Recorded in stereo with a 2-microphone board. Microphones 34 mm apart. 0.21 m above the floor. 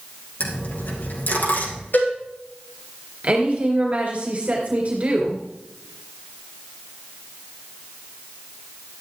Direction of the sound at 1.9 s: 65° left (ahead or behind).